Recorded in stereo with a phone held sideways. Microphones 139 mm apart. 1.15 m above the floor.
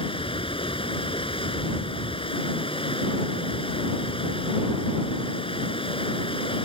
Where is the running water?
40° left (ahead or behind).